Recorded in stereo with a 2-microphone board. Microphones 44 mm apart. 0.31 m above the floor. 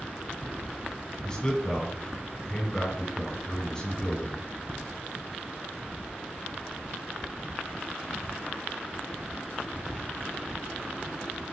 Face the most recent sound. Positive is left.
turn(degrees=20)  # may be behind; listen again after turning